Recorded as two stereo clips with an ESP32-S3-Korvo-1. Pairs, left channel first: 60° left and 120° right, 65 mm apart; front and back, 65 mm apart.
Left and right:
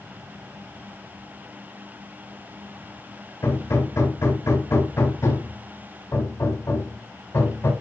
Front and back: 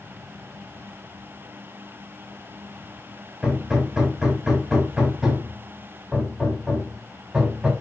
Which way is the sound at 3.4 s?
100° left.